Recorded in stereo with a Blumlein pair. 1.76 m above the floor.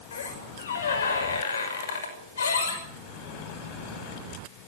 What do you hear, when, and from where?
0.1 s a squeak: 65° left, 6 m